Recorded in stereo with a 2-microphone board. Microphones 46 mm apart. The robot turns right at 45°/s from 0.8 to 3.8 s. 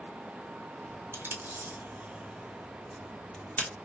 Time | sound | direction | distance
1.1 | tape being pulled | 60° right (ahead or behind) | 0.9 m